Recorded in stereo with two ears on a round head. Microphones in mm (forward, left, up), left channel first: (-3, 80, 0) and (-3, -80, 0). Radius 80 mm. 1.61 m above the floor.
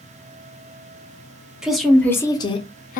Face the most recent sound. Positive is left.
turn(degrees=50)  # may be behind; listen again after turning